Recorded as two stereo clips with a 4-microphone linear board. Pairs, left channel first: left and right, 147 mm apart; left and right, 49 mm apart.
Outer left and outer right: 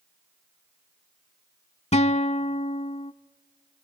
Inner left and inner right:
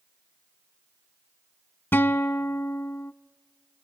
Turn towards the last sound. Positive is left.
turn(degrees=45)  # may be behind; listen again after turning